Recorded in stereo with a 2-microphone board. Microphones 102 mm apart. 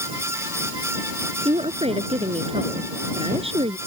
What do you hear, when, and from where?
1.4 s a woman speaking: 75° right (ahead or behind)